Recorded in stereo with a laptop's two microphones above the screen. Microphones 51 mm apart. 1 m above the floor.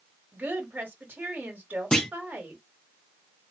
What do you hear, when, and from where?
0.3 s a woman speaking: 40° right (ahead or behind), 1.5 m
1.9 s a clunk: 15° left (ahead or behind), 0.7 m